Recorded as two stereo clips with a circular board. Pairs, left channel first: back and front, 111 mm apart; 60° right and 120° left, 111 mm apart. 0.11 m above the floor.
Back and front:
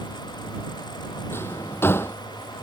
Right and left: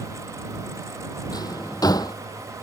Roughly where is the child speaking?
I don't hear a child speaking.